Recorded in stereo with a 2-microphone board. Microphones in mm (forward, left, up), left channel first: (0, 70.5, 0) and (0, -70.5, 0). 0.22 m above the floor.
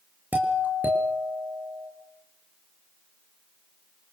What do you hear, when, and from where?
0.3 s a doorbell: 10° right (ahead or behind), 5.5 m